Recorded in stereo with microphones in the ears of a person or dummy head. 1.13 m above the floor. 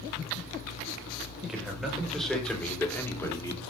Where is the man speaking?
5° right (ahead or behind), 5 m; by 3.6 s 20° left (ahead or behind), 2.5 m.